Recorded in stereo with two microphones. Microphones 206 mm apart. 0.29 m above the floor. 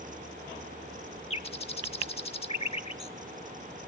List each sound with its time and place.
1.3 s a bird: 30° left (ahead or behind), 0.5 m